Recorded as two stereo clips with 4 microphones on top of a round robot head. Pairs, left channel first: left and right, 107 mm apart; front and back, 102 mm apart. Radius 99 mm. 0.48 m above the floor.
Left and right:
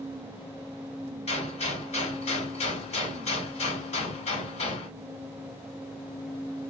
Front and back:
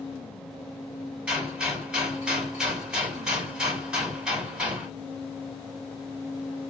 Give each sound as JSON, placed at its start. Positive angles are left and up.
{"t": 1.3, "sound": "a gunshot", "azimuth_deg": 95, "distance_m": 4.0}